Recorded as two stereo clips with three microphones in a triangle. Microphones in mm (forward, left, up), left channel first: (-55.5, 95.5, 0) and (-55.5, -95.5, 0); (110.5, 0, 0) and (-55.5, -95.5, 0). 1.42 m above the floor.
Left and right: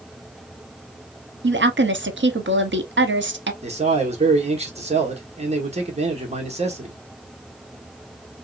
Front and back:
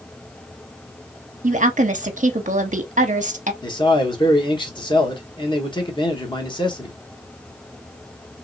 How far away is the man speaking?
About 1.2 m.